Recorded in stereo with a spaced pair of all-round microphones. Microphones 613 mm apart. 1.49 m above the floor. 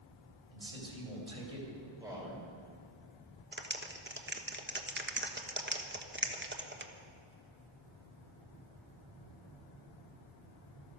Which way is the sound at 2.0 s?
5° right (ahead or behind).